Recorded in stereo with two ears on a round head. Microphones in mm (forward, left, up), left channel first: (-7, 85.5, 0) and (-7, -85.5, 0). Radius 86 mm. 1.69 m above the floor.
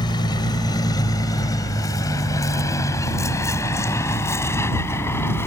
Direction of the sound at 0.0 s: 25° left (ahead or behind).